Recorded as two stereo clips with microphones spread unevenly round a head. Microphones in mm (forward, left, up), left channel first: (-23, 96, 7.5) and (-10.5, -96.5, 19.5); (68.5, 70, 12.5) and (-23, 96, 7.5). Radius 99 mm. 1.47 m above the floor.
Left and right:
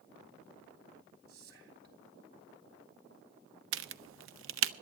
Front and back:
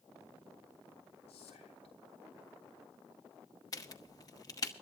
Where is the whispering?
45° right, 3.5 m.